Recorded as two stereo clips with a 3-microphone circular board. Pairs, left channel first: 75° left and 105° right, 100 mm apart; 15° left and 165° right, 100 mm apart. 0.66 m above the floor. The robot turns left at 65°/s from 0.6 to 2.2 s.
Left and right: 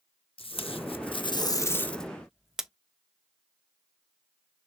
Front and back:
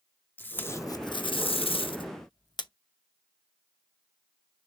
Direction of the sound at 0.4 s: 85° left.